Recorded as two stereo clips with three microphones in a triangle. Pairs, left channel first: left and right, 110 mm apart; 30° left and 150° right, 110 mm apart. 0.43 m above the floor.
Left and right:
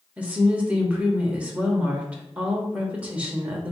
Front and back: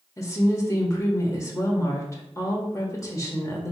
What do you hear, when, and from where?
0.2 s a woman speaking: 20° right, 0.9 m